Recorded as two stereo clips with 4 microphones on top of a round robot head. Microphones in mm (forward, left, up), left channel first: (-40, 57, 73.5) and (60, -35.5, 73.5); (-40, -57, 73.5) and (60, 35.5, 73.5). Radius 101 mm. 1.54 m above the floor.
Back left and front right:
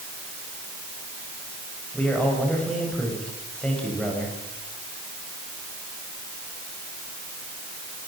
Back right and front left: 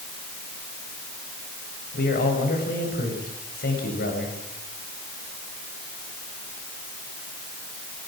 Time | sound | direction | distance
1.9 | a man speaking | 140° right | 7.5 m